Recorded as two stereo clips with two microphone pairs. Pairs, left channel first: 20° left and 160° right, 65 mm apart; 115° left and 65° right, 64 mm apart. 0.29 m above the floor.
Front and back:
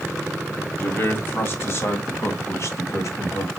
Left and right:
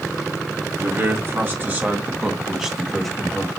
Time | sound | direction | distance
0.8 | a man speaking | 30° right | 2.5 m